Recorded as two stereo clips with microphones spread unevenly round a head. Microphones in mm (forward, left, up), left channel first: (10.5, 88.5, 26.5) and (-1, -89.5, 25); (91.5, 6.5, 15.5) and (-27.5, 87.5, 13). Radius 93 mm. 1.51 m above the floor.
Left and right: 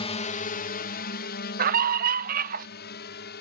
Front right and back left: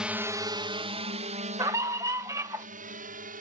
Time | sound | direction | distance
0.0 | a drone | 70° left | ?
1.6 | a scream | 140° right | ?